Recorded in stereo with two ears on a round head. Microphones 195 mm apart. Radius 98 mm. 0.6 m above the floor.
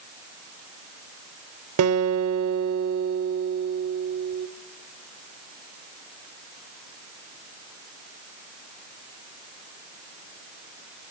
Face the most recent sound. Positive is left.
turn(degrees=-75)  # may be behind; listen again after turning